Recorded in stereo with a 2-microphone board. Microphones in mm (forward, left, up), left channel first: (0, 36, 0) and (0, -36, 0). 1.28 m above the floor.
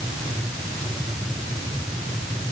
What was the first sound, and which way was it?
Only background noise.